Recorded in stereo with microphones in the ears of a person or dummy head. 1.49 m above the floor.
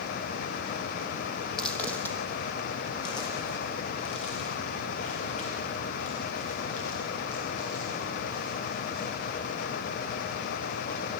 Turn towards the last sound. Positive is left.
turn(degrees=60)  # may be behind; listen again after turning